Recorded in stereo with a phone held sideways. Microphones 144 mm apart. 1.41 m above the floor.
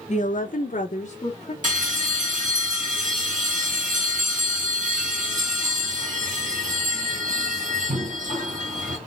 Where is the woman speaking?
55° left (ahead or behind), 0.8 m; by 1.5 s 45° left (ahead or behind), 1.4 m.